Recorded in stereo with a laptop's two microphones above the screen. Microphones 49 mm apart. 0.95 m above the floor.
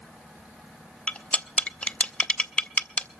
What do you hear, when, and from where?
1.1 s cutlery clinking: 30° left (ahead or behind), 0.5 m